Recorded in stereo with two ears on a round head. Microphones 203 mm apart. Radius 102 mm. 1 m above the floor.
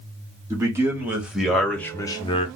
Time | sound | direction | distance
0.5 | a man speaking | 15° right (ahead or behind) | 1.4 m